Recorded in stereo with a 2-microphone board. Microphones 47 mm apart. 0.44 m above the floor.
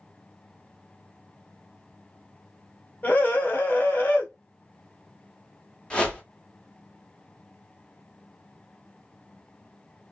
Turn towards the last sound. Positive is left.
turn(degrees=20)  # may be behind; listen again after turning